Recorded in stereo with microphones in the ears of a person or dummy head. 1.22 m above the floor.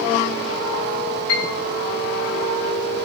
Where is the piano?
85° left, 6 m.